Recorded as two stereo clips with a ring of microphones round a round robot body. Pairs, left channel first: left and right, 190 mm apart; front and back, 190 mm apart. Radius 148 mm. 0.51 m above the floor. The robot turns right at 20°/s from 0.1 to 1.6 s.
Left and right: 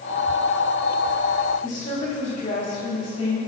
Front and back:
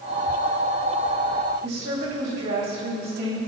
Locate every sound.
1.6 s a woman speaking: 145° left, 3 m